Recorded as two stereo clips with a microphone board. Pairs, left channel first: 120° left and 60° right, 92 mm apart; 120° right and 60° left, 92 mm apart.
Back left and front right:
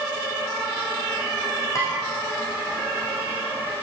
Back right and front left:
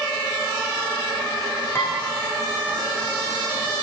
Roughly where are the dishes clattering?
Behind.